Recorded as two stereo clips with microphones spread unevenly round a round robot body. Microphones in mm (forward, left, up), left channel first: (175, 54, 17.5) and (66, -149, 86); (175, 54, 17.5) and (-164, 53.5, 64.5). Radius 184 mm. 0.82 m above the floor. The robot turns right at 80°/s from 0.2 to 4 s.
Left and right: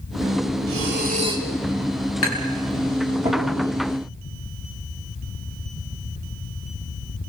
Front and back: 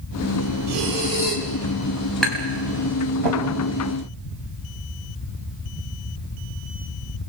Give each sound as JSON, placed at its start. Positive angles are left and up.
{"t": 0.7, "sound": "breathing", "azimuth_deg": -100, "distance_m": 3.0}
{"t": 2.2, "sound": "tapping", "azimuth_deg": 90, "distance_m": 5.0}